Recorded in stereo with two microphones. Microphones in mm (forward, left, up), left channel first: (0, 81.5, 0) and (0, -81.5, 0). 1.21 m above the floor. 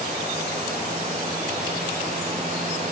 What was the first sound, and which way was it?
Only background noise.